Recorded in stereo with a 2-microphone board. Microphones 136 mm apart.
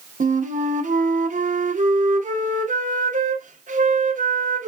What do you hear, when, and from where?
0.2 s a flute: 70° right (ahead or behind), 0.6 m